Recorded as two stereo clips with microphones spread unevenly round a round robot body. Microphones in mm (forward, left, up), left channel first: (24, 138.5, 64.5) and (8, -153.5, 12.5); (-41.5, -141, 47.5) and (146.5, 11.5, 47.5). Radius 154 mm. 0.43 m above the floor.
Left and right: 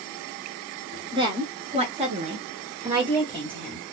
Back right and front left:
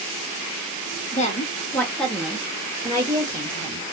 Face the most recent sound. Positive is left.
turn(degrees=-25)